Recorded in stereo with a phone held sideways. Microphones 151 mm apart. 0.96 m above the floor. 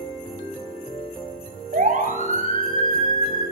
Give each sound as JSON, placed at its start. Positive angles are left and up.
{"t": 1.7, "sound": "a siren", "side_deg": -60, "distance_m": 8.5}